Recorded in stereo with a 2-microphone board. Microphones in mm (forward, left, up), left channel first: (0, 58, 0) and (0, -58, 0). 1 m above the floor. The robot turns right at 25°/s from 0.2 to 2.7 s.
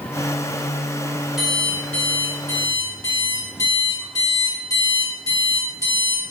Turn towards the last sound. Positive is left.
turn(degrees=30)